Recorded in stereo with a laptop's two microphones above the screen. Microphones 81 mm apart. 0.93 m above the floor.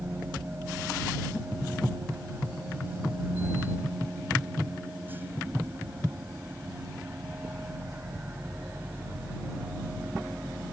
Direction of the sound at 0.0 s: 25° right (ahead or behind).